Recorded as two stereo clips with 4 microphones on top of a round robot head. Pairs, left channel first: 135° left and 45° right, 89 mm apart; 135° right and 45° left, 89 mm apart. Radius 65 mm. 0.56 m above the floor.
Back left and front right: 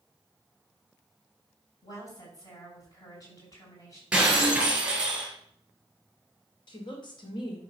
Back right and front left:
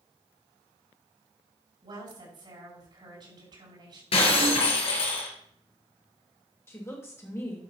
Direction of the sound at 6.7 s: 165° left.